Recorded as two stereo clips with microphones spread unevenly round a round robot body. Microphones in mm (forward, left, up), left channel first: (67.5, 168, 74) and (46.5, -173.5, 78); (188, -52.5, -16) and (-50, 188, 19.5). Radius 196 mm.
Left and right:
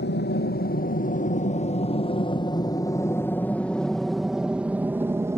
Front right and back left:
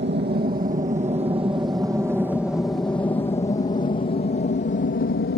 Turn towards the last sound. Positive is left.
turn(degrees=-15)